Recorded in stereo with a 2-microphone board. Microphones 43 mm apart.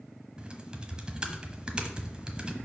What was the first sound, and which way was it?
Typing on a keyboard, 20° right (ahead or behind).